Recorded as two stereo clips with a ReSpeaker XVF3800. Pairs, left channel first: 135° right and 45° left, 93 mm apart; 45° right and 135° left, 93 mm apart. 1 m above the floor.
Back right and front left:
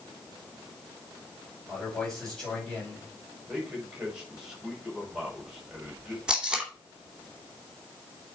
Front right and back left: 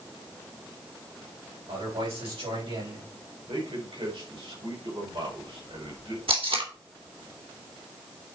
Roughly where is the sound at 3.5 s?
Behind left.